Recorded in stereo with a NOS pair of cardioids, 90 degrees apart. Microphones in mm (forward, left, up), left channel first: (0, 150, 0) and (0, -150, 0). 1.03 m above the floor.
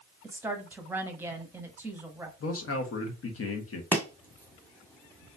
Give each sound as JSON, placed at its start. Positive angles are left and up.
{"t": 0.2, "sound": "a woman speaking", "azimuth_deg": -5, "distance_m": 1.1}
{"t": 2.4, "sound": "a man speaking", "azimuth_deg": 50, "distance_m": 1.3}
{"t": 3.9, "sound": "chopping", "azimuth_deg": 5, "distance_m": 1.4}